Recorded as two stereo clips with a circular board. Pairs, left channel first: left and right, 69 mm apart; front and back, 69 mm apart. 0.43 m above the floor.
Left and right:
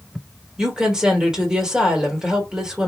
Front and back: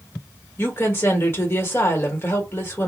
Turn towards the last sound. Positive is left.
turn(degrees=-15)